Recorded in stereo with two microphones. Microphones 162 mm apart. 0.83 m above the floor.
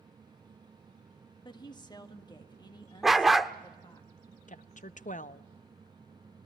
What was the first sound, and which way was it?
A woman speaking, 25° left (ahead or behind).